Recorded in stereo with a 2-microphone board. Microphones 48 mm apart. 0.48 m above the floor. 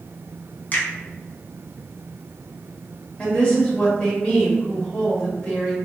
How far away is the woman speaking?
About 1.5 m.